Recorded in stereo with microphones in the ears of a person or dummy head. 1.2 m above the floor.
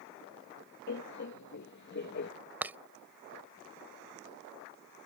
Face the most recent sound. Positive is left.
turn(degrees=-5)  # may be behind; listen again after turning